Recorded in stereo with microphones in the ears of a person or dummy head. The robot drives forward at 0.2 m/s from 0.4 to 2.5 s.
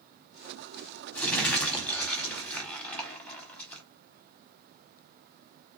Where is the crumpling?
10° left (ahead or behind), 1.4 m.